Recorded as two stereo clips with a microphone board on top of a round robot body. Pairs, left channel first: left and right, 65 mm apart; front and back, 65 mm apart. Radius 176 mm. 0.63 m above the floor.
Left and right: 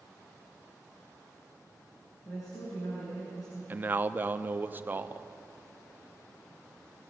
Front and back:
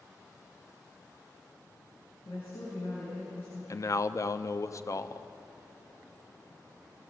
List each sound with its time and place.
2.2 s a woman speaking: 60° left, 8 m
3.7 s a man speaking: 30° right, 1.1 m